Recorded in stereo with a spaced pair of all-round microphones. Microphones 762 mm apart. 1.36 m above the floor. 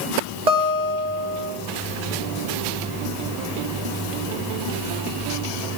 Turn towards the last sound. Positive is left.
turn(degrees=-60)  # may be behind; listen again after turning